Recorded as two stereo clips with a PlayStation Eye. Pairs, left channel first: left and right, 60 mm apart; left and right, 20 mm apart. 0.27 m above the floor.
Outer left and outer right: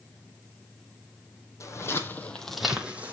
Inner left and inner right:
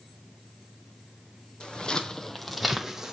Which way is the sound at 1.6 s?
60° left (ahead or behind).